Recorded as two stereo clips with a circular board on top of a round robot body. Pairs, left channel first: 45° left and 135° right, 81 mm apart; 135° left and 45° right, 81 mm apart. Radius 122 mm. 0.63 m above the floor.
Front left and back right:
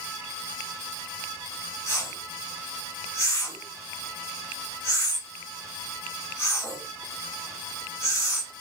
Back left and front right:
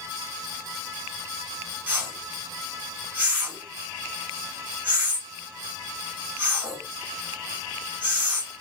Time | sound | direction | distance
1.9 | a whoosh | 15° left | 1.4 m